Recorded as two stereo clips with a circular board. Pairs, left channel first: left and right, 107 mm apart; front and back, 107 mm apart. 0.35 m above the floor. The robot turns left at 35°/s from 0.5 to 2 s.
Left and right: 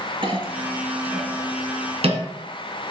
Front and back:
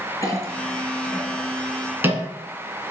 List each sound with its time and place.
0.2 s a clink: 60° right, 1.9 m; by 2.2 s 110° right, 1.9 m